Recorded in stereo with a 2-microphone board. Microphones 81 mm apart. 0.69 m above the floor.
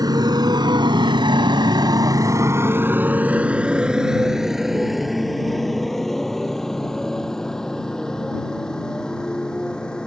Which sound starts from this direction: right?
A motorcycle, at 0.0 s.